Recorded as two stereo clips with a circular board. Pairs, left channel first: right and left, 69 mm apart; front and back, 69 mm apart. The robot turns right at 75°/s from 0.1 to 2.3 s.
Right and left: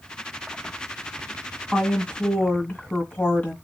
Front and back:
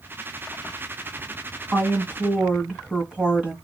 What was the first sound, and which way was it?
A woman speaking, 170° right.